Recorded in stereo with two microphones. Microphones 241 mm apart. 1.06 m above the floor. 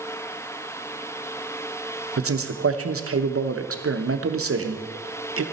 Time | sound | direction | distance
2.2 | a man speaking | 70° right (ahead or behind) | 0.8 m